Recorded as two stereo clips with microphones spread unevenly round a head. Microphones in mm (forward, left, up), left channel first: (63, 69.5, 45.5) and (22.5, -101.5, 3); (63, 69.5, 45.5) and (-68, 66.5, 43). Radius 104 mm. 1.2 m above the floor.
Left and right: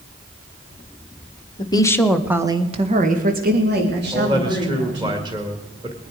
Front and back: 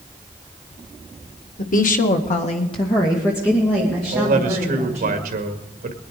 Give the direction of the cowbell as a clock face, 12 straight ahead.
I don't hear a cowbell.